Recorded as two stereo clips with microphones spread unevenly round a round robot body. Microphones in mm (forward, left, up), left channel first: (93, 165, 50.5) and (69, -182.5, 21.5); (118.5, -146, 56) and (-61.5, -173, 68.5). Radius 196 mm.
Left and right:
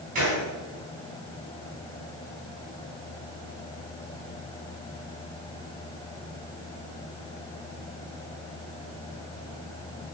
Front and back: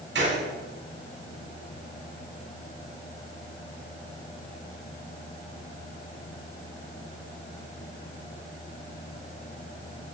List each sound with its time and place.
0.1 s a gunshot: 165° right, 4 m